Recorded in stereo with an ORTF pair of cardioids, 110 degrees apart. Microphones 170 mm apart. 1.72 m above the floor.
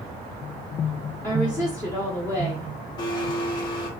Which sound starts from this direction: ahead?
A woman speaking, at 1.2 s.